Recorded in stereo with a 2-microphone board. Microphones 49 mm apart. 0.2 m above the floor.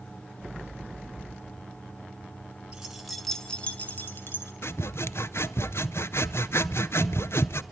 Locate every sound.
2.7 s keys jangling: 15° right (ahead or behind), 1.6 m; by 4.5 s 55° left (ahead or behind), 1.8 m
4.6 s sawing: 65° left (ahead or behind), 0.6 m